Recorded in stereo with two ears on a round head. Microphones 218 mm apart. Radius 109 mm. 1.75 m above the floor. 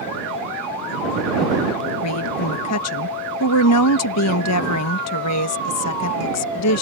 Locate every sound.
2.0 s a woman speaking: 75° left (ahead or behind)